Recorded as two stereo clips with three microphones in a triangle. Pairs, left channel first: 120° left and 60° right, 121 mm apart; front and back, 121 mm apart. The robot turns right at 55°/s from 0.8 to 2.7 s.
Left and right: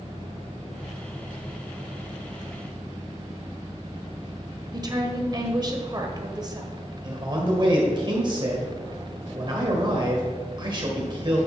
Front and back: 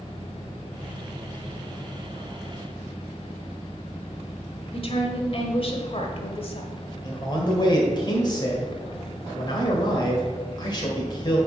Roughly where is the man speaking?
Ahead right.